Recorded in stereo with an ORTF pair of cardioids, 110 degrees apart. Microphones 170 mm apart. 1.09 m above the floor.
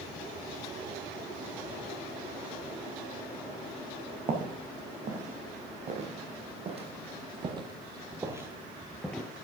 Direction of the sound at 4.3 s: 50° right.